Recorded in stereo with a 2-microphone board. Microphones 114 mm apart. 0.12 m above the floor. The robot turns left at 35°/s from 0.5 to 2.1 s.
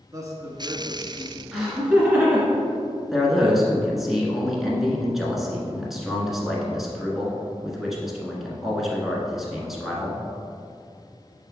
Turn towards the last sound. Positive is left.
turn(degrees=-5)  # may be behind; listen again after turning